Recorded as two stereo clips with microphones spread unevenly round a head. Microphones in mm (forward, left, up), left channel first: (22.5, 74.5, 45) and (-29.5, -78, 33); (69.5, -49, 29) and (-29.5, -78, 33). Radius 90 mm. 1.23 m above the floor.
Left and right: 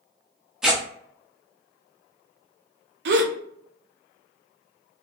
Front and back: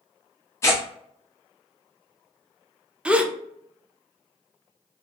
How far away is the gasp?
About 0.5 m.